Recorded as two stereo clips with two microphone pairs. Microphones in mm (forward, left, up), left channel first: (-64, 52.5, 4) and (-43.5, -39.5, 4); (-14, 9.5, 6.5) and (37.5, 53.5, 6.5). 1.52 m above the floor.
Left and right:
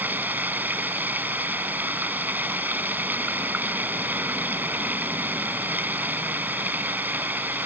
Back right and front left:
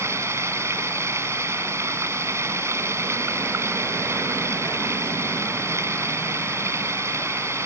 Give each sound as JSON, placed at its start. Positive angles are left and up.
{"t": 0.0, "sound": "running water", "azimuth_deg": -5}